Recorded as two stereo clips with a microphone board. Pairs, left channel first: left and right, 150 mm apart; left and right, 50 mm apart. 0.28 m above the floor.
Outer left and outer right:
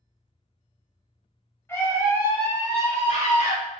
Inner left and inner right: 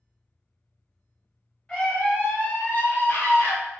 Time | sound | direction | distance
1.7 | a scream | 15° left (ahead or behind) | 1.0 m